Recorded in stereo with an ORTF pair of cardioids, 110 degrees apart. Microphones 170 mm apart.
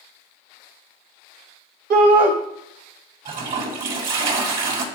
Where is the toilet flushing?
55° right, 2.5 m.